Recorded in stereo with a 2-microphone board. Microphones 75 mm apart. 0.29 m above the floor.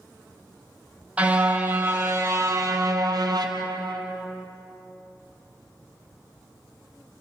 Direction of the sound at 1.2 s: 20° right (ahead or behind).